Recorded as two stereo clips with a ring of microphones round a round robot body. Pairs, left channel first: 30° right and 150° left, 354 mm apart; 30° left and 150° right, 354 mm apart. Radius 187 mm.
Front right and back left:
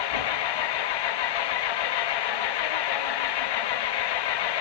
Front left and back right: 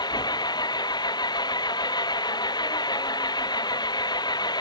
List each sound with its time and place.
0.0 s an engine running: 50° right